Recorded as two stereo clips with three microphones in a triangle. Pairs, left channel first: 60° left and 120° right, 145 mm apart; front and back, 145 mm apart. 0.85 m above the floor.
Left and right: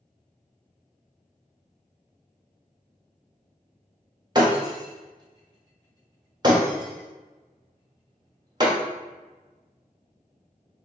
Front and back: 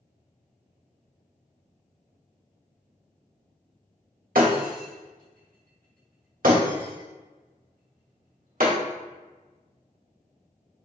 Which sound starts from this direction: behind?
Breaking glass, at 4.3 s.